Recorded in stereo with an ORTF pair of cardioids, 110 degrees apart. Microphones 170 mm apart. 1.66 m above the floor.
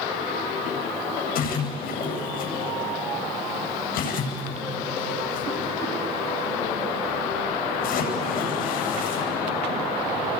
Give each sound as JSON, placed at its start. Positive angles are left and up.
{"t": 1.4, "sound": "a splash", "azimuth_deg": 65, "distance_m": 8.5}